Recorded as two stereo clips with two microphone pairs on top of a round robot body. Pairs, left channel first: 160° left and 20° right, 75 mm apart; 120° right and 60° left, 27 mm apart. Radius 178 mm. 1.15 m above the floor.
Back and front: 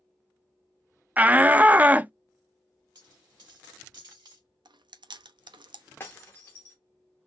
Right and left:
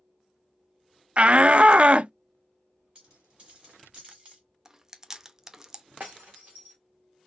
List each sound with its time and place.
1.2 s a shout: 35° left, 0.6 m
3.0 s a dropped coin: 5° left, 1.9 m
4.7 s chewing: 15° right, 0.7 m
6.0 s breaking glass: 95° left, 0.5 m